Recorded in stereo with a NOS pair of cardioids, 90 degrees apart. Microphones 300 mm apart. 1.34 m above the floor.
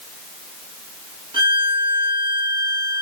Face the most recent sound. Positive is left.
turn(degrees=-15)